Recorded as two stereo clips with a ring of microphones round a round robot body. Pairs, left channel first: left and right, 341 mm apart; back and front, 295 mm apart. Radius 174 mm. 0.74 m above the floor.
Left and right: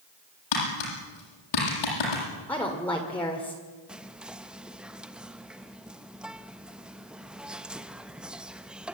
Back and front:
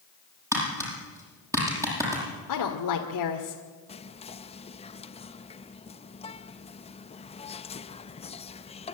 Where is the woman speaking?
175° left, 2.0 m.